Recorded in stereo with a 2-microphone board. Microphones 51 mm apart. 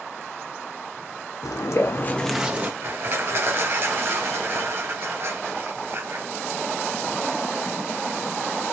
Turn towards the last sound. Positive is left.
turn(degrees=-50)  # may be behind; listen again after turning